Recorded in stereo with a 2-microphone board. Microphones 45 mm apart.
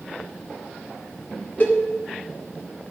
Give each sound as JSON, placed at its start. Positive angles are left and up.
{"t": 1.6, "sound": "a cowbell", "side_deg": 40, "distance_m": 2.0}